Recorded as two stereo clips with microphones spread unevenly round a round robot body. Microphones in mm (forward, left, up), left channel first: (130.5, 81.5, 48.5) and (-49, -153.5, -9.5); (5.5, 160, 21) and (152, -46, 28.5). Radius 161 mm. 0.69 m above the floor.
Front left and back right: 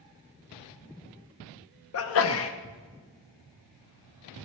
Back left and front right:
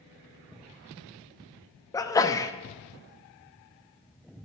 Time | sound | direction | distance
1.9 | a sneeze | 60° left | 0.7 m